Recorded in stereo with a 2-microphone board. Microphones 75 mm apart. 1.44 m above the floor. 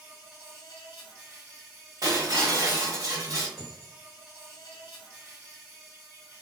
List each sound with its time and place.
0.0 s an insect: 30° right (ahead or behind), 1.6 m
2.0 s breaking glass: 50° right (ahead or behind), 1.7 m
3.6 s a dropped coin: 5° right (ahead or behind), 1.2 m